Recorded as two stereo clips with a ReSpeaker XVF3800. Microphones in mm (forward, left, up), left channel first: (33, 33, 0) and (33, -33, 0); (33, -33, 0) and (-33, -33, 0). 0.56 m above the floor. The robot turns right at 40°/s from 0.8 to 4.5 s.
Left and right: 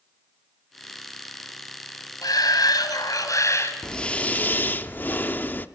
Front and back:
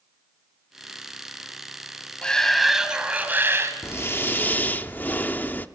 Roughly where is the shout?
Left.